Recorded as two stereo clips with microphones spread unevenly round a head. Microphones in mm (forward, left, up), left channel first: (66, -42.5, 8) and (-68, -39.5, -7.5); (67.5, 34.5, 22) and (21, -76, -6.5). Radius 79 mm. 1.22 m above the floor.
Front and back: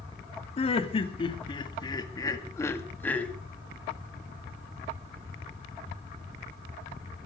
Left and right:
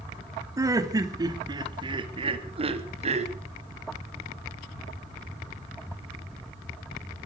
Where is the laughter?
50° right, 3 m; by 3.3 s 85° right, 2 m.